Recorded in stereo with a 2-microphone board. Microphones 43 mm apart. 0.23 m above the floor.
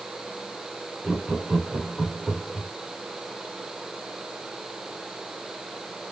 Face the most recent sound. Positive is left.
turn(degrees=-15)  # may be behind; listen again after turning